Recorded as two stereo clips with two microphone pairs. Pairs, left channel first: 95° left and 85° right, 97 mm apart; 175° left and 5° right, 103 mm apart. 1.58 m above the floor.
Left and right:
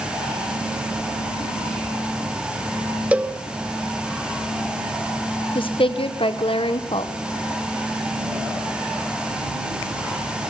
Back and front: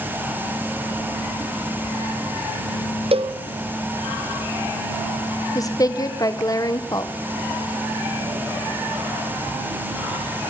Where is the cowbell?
10° right, 0.9 m.